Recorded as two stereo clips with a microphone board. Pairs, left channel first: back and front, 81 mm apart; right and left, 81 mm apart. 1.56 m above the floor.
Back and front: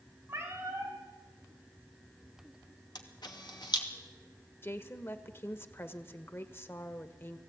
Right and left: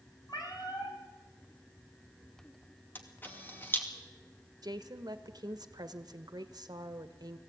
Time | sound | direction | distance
0.3 | a cat meowing | 60° right | 4 m
3.0 | a camera shutter | 155° right | 2.5 m
4.6 | a woman speaking | 120° left | 1.4 m